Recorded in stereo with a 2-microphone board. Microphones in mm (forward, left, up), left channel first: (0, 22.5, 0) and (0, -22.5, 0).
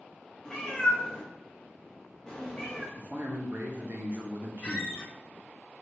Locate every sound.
0.5 s a cat meowing: 15° left (ahead or behind), 0.8 m
3.0 s a man speaking: 45° right (ahead or behind), 0.6 m
4.6 s a squeak: 20° left (ahead or behind), 0.9 m